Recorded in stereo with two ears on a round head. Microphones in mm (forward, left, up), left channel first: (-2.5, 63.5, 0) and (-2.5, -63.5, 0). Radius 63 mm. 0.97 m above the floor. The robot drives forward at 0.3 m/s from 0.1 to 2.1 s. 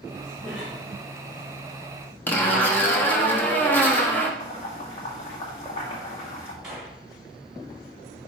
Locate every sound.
0.4 s a cough: 5° left (ahead or behind), 2 m
2.3 s a zipper: 15° left (ahead or behind), 1.0 m
4.4 s boiling: 45° left (ahead or behind), 2 m
6.6 s a gunshot: 5° right (ahead or behind), 2.5 m